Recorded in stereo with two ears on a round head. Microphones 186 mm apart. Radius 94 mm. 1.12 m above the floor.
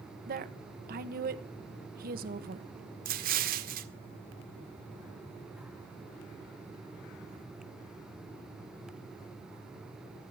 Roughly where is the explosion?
Right.